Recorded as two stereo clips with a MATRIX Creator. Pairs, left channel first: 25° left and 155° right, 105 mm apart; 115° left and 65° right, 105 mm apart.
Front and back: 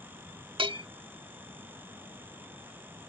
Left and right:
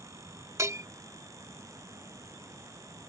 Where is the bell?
125° right.